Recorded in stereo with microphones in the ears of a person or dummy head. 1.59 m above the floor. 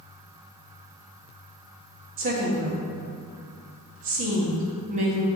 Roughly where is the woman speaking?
Right.